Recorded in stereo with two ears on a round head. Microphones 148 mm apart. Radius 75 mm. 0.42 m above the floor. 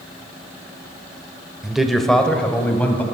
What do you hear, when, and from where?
1.6 s a man speaking: 5° right (ahead or behind), 1.1 m; by 3.0 s 10° left (ahead or behind), 2 m